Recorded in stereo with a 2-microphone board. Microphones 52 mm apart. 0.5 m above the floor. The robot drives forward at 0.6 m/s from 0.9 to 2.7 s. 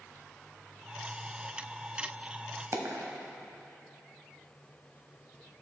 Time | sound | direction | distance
2.7 | a dropped coin | 60° right (ahead or behind) | 0.9 m